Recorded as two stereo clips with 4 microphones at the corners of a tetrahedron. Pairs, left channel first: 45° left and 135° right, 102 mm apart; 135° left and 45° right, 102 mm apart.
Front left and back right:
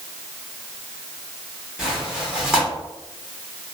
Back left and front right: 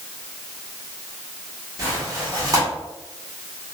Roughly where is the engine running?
No engine running in this recording.